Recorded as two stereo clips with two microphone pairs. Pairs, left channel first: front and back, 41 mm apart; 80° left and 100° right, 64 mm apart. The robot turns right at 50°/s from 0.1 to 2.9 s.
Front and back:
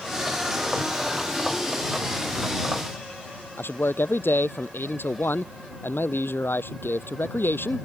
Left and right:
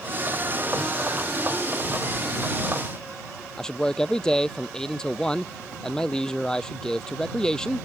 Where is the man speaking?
Straight ahead.